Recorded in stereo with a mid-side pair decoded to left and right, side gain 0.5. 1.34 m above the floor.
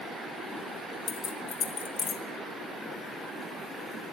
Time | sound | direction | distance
1.1 | keys jangling | 50° left | 1.1 m